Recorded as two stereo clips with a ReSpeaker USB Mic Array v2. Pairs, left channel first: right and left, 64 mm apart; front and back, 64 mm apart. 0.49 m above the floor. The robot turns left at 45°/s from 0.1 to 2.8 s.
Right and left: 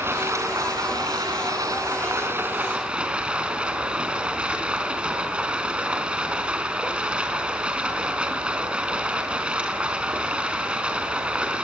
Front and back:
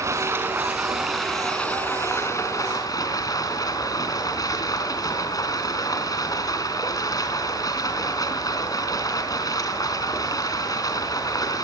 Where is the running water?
140° left, 4 m; by 11.6 s 20° left, 4 m.